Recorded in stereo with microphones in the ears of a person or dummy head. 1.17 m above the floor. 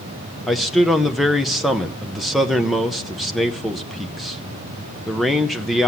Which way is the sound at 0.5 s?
Centre (ahead or behind).